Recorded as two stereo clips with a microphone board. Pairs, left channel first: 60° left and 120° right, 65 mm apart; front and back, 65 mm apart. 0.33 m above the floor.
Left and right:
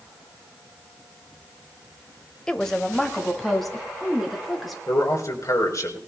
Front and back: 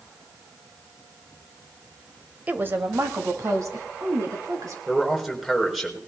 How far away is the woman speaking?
About 1.0 m.